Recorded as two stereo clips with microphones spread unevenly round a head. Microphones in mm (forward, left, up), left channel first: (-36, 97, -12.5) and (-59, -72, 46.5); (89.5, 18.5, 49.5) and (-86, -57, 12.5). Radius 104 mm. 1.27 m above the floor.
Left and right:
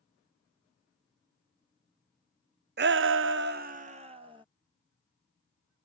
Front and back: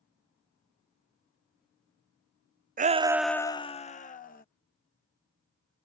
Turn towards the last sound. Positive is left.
turn(degrees=-25)